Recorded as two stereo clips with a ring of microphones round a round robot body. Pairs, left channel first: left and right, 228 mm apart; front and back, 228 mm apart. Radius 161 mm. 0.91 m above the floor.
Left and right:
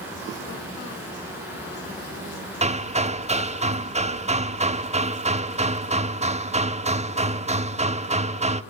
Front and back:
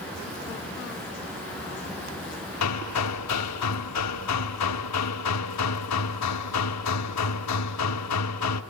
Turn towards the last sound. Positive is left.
turn(degrees=-25)